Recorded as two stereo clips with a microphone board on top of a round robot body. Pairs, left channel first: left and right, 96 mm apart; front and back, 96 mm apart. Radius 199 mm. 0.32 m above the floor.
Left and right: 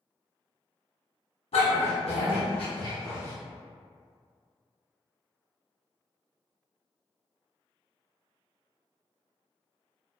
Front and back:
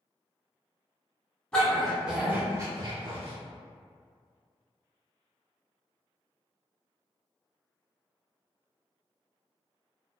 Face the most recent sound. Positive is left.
turn(degrees=155)